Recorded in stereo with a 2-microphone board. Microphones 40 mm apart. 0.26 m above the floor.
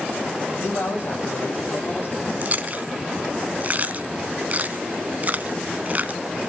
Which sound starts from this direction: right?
Chewing, at 2.4 s.